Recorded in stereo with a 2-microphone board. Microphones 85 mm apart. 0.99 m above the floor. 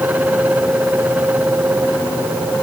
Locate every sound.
Only background noise.